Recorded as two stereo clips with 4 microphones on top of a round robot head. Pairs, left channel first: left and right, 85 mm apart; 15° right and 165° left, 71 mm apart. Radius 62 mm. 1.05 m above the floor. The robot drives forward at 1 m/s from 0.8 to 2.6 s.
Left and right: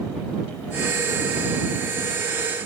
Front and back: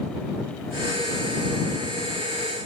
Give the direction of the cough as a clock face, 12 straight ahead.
I don't hear a cough.